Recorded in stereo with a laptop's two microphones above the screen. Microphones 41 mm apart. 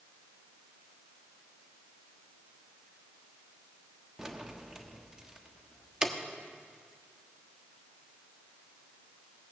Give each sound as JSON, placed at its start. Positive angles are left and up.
{"t": 4.2, "sound": "keys jangling", "side_deg": -15, "distance_m": 1.2}